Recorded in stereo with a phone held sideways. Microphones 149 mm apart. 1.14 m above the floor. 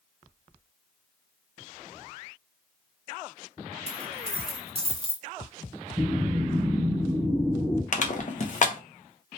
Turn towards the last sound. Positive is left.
turn(degrees=55)  # may be behind; listen again after turning